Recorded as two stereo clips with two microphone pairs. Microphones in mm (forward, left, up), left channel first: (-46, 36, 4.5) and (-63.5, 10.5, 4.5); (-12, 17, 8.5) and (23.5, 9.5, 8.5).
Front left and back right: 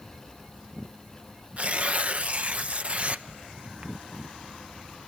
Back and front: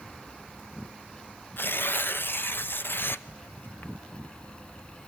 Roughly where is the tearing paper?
Behind.